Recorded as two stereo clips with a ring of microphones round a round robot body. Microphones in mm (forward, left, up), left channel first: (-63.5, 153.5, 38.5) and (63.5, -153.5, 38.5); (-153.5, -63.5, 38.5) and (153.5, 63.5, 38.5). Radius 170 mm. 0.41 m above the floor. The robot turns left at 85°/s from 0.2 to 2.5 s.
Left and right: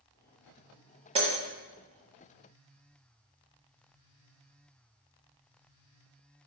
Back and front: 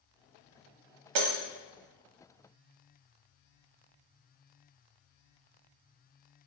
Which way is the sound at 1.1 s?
5° left.